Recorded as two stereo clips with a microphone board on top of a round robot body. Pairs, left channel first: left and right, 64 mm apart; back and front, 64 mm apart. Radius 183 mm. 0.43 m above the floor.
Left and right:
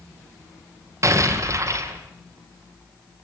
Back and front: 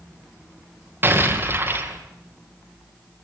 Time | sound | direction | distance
1.0 | an explosion | 55° right | 3 m